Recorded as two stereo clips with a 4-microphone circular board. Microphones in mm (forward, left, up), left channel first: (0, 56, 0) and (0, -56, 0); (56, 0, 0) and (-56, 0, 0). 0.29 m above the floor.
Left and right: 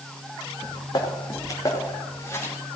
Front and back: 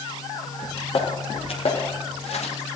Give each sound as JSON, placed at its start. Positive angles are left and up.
{"t": 0.6, "sound": "footsteps", "azimuth_deg": 40, "distance_m": 3.5}